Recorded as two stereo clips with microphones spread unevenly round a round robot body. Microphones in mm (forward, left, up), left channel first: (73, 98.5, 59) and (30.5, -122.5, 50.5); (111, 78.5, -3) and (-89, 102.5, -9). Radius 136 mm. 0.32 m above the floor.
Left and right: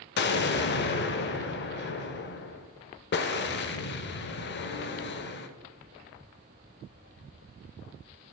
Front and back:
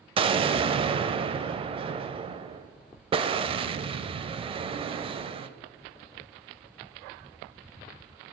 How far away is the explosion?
About 0.6 m.